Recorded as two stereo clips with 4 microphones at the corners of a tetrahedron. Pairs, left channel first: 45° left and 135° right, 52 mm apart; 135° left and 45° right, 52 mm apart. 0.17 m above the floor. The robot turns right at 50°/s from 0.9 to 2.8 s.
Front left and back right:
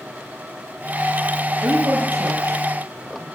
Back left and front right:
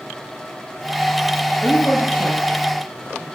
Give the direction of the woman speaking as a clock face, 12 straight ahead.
6 o'clock.